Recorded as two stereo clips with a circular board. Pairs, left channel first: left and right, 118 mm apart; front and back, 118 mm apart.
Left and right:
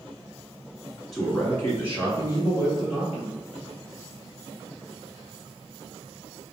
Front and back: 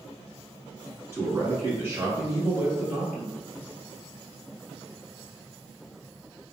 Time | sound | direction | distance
1.1 | a man speaking | 170° left | 1.6 m